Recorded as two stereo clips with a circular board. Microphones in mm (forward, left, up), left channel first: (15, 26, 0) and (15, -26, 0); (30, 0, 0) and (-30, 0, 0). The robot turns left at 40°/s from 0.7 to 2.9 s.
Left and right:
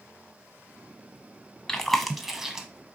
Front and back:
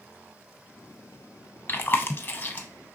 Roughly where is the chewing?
Ahead.